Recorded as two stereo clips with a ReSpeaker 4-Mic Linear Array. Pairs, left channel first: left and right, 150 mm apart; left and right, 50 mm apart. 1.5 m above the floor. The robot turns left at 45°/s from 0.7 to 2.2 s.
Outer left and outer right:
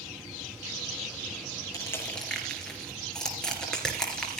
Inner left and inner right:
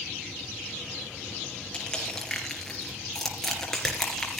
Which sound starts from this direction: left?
Crushing, at 1.7 s.